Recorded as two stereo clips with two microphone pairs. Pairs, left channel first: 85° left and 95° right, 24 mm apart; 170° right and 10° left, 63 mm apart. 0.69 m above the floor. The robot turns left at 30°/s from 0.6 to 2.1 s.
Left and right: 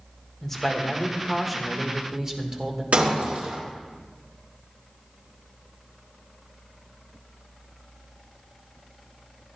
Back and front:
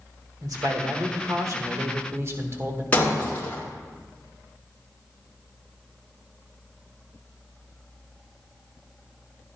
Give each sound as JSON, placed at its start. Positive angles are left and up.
{"t": 0.4, "sound": "a man speaking", "azimuth_deg": 15, "distance_m": 1.6}
{"t": 2.9, "sound": "breaking glass", "azimuth_deg": -105, "distance_m": 3.5}